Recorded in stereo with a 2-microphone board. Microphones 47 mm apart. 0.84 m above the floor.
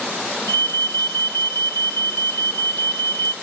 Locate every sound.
0.5 s an alarm: 60° left (ahead or behind), 1.9 m